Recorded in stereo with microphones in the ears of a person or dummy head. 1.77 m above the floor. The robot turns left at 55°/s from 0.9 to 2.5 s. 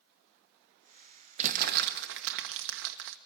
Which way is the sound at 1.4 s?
40° right (ahead or behind).